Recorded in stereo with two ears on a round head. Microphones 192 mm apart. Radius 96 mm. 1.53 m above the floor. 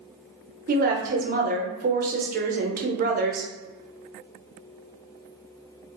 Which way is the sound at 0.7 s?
40° right (ahead or behind).